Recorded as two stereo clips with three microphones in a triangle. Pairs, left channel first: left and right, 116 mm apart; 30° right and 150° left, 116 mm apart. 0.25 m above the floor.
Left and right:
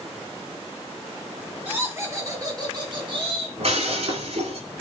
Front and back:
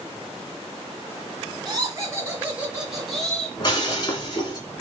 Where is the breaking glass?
80° right, 1.7 m.